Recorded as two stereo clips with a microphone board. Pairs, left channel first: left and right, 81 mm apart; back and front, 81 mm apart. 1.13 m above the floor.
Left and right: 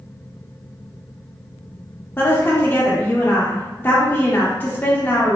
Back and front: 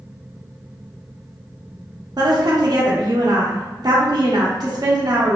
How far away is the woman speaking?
About 0.5 m.